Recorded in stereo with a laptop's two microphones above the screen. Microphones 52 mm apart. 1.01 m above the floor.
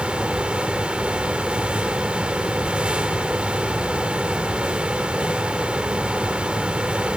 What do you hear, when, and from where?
0.0 s a fan: 20° right (ahead or behind), 1.0 m